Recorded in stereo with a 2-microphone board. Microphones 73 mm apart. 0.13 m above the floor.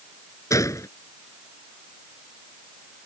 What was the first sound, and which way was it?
A gunshot, 50° left (ahead or behind).